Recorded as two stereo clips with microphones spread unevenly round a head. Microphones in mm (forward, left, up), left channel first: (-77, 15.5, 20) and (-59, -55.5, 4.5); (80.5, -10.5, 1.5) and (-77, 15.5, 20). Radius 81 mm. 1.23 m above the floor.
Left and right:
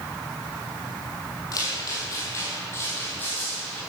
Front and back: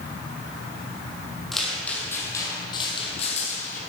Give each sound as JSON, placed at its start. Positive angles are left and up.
{"t": 1.5, "sound": "footsteps", "azimuth_deg": 85, "distance_m": 2.0}